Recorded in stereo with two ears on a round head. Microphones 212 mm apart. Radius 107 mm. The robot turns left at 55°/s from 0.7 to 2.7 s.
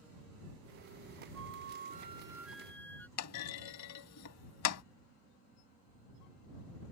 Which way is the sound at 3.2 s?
80° left.